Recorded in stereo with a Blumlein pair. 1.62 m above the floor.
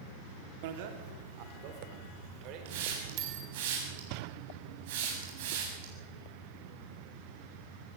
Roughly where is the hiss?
Ahead right.